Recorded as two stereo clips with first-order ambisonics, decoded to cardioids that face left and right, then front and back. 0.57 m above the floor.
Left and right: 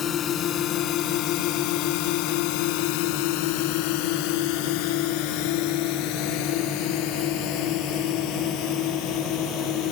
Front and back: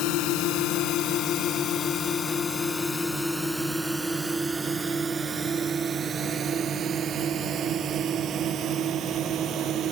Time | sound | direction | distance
0.0 | a drone | 30° left | ?